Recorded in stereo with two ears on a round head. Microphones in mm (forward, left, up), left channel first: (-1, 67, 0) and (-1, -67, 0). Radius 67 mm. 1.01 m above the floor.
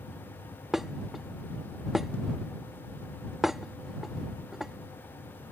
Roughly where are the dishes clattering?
Centre.